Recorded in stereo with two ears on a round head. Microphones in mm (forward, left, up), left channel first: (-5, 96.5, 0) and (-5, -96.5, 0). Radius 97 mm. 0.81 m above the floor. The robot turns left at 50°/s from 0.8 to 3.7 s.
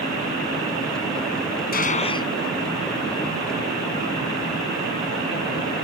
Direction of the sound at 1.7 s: 45° left (ahead or behind).